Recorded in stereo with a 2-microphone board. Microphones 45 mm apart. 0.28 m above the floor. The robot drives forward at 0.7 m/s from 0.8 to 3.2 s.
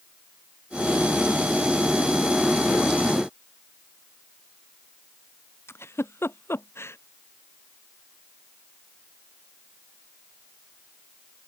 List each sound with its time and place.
5.7 s a giggle: 70° left (ahead or behind)